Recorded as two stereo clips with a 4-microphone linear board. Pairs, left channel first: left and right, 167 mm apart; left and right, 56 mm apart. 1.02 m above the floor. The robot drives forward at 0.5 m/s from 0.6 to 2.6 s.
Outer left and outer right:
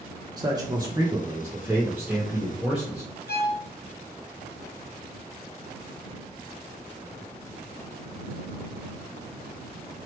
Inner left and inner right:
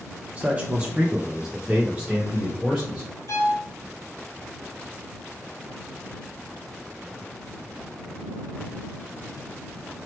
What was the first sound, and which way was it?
A man speaking, 25° right (ahead or behind).